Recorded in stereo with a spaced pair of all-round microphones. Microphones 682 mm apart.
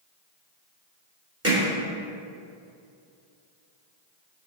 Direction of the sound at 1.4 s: 20° right (ahead or behind).